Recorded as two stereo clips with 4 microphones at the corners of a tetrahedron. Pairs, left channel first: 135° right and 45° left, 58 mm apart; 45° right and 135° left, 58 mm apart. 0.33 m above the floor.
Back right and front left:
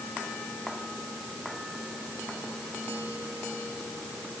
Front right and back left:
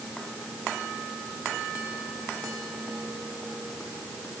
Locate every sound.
Only background noise.